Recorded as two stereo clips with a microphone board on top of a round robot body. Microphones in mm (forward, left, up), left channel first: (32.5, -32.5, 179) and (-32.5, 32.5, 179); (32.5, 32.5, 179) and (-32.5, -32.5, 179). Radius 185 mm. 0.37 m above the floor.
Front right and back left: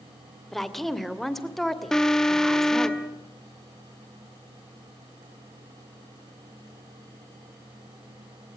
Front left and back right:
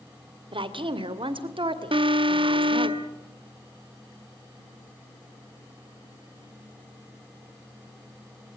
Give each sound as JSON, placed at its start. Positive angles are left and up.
{"t": 0.5, "sound": "a woman speaking", "azimuth_deg": -130, "distance_m": 2.5}
{"t": 1.9, "sound": "an alarm", "azimuth_deg": -130, "distance_m": 1.6}